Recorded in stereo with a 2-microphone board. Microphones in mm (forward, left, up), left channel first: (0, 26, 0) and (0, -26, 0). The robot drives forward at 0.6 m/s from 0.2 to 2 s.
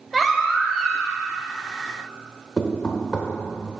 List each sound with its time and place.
0.1 s a baby crying: 5° left (ahead or behind), 1.0 m; by 1.2 s centre (ahead or behind), 1.6 m
2.6 s knocking: 15° left (ahead or behind), 1.0 m